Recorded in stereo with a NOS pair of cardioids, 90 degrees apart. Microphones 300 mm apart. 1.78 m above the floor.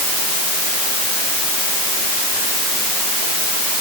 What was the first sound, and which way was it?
Only background noise.